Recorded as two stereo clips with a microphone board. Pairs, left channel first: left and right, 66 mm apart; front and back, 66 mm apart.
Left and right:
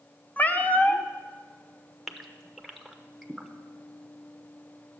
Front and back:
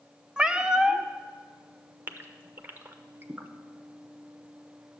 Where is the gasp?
Straight behind, 0.7 m.